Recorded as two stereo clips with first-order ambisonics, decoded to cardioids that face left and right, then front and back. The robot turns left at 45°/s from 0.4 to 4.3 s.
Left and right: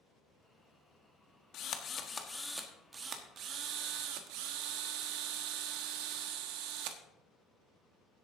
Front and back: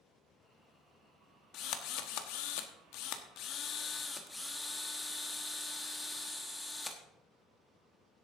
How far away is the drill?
About 1.2 m.